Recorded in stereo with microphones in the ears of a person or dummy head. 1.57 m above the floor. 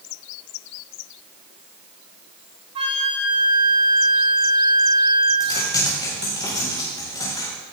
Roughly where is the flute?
Right.